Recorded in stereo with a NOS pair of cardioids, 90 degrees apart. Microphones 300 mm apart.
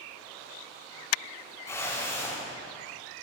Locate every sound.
1.7 s a whoosh: 10° left, 6.5 m